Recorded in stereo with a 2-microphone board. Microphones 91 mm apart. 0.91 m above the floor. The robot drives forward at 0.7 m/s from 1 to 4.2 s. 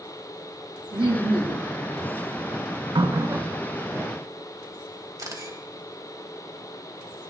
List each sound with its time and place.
0.9 s laughter: 65° right (ahead or behind), 1.7 m; by 1.7 s 60° right (ahead or behind), 1.7 m
3.0 s a running tap: 55° right (ahead or behind), 0.5 m; by 4.1 s 20° right (ahead or behind), 1.2 m
5.2 s a camera shutter: 40° right (ahead or behind), 1.8 m